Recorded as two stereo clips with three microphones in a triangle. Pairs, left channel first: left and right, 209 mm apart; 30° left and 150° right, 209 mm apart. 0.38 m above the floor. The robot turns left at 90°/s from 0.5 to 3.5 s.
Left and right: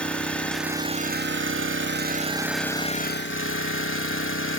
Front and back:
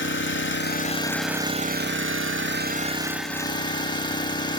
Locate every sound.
0.0 s an engine running: 5° left, 0.9 m; by 4.6 s 95° left, 0.9 m